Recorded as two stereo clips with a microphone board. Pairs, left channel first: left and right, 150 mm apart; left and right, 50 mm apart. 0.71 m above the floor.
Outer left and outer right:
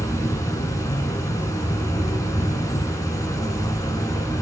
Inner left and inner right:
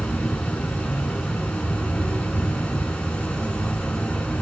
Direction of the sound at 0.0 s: 20° left (ahead or behind).